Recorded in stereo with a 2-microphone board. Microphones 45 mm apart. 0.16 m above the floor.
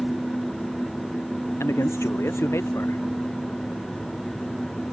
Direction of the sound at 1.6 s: 80° left.